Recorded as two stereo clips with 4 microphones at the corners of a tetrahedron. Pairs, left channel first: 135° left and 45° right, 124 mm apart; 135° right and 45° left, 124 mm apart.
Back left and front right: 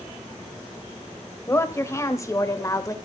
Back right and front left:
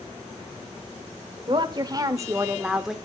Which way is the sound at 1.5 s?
75° left.